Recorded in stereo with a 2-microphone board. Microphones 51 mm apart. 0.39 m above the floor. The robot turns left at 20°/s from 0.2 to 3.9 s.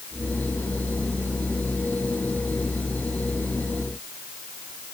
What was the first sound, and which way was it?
Only background noise.